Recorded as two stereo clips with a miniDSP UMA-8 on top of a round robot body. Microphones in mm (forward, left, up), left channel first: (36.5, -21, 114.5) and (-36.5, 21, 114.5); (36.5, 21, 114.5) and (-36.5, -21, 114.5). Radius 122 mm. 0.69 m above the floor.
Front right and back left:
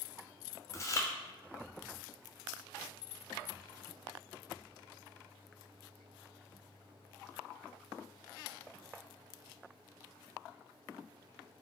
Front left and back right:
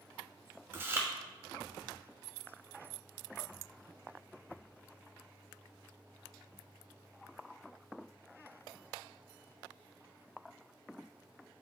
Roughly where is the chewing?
Right.